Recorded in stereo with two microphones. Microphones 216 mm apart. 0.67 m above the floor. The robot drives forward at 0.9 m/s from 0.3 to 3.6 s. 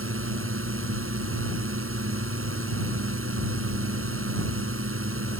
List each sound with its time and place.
0.0 s a drone: 80° right